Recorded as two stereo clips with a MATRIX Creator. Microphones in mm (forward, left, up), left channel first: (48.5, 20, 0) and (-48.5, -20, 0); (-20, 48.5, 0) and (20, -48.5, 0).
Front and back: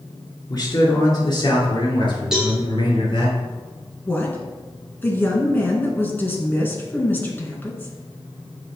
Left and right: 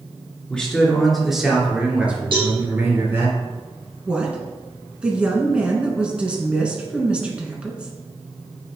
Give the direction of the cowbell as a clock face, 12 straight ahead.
2 o'clock.